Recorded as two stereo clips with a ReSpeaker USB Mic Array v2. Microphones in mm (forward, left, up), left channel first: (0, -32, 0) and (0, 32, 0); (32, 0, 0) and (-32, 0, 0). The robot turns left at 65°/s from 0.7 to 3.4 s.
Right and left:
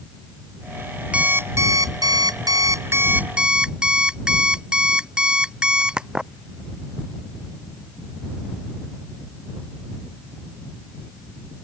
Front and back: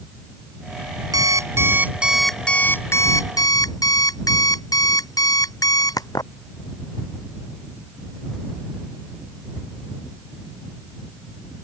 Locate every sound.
1.1 s an alarm clock: 165° left; by 6.3 s 15° left